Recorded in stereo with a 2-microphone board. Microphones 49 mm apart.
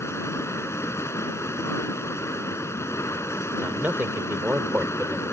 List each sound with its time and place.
0.0 s running water: 70° left (ahead or behind)
3.6 s a man speaking: 45° right (ahead or behind)